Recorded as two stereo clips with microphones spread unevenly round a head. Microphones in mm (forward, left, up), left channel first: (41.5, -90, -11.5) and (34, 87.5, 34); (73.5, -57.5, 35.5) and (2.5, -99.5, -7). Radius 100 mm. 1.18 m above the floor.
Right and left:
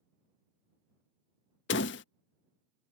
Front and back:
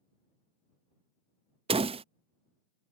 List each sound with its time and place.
1.7 s a door slam: 130° right